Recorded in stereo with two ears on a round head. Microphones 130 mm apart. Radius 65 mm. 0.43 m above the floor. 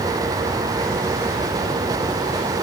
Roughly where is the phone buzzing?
No phone buzzing in this recording.